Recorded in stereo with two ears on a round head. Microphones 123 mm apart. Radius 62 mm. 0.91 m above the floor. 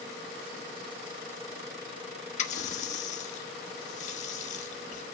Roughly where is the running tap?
Left.